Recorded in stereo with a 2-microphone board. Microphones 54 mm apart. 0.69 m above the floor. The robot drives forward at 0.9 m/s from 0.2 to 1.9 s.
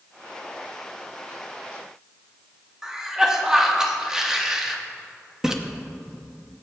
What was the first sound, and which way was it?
A cough, 10° right (ahead or behind).